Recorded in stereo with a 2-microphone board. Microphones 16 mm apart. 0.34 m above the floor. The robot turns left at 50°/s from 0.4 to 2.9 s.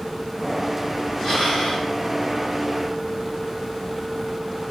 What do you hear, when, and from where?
1.2 s breathing: 130° left, 3 m; by 1.9 s 95° left, 3 m